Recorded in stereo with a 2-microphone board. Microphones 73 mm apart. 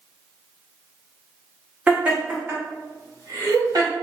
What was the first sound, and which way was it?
Laughter, 15° right (ahead or behind).